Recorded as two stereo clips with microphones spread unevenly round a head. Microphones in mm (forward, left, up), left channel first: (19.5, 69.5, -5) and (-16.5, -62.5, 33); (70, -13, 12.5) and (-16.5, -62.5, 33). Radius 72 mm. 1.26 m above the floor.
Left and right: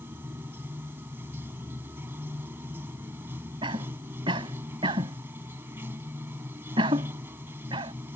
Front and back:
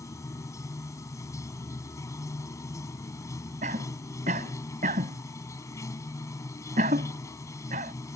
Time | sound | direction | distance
0.0 | running water | 35° right | ?
3.6 | a cough | 160° right | ?